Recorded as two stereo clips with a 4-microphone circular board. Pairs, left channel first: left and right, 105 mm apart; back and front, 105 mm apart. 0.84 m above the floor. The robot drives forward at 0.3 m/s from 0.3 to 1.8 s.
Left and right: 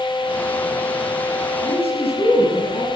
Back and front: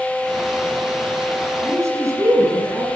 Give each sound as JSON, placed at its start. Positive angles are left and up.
{"t": 1.6, "sound": "a man speaking", "azimuth_deg": 65, "distance_m": 8.0}